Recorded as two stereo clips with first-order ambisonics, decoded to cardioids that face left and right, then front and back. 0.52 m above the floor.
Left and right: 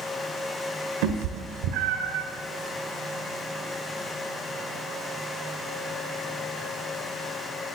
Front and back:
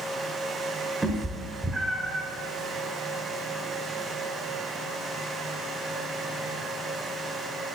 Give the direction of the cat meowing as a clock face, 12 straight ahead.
3 o'clock.